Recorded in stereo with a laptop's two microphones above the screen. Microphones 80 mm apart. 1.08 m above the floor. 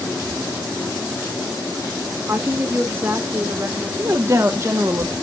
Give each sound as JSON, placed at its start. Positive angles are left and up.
{"t": 2.3, "sound": "a woman speaking", "side_deg": -25, "distance_m": 1.3}
{"t": 4.0, "sound": "a woman speaking", "side_deg": -35, "distance_m": 0.7}